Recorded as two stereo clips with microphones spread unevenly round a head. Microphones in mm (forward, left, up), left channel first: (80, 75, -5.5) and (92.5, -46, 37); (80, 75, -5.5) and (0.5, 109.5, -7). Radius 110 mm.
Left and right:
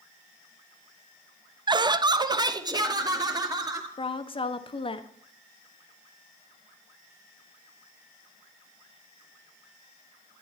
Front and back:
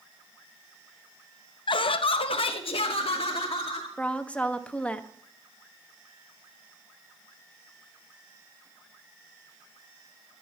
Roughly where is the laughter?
Ahead.